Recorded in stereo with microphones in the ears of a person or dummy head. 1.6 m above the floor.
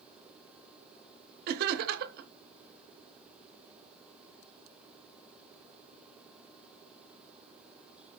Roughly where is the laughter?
Right.